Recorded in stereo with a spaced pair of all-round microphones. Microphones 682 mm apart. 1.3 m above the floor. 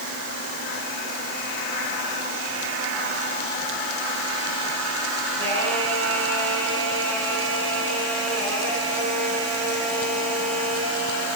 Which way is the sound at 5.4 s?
20° right (ahead or behind).